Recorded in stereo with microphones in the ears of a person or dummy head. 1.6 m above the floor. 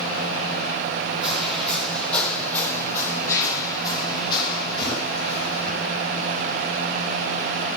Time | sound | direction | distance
1.2 | footsteps | centre (ahead or behind) | 3.5 m